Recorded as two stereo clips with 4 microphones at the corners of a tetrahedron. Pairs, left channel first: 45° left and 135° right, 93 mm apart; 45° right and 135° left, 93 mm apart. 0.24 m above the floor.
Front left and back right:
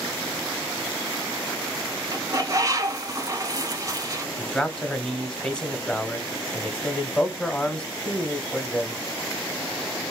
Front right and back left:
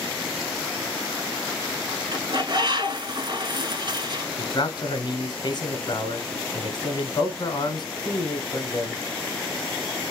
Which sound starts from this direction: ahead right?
A man speaking, at 4.4 s.